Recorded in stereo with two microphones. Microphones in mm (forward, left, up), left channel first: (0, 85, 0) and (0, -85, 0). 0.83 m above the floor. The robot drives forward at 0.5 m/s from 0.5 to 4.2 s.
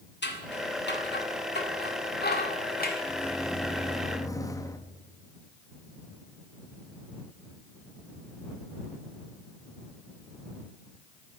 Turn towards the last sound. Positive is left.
turn(degrees=20)  # may be behind; listen again after turning